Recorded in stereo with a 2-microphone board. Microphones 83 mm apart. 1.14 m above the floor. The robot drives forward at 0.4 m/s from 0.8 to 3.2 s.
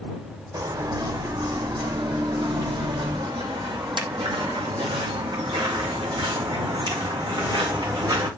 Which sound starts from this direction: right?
Footsteps, at 0.5 s.